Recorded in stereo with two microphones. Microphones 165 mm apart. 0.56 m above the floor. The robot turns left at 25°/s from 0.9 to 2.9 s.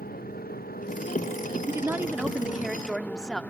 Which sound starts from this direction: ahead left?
A motorcycle, at 0.0 s.